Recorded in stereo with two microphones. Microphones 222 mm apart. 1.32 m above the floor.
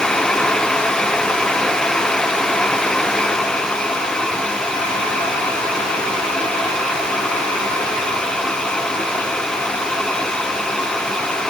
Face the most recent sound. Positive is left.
No sound to turn to.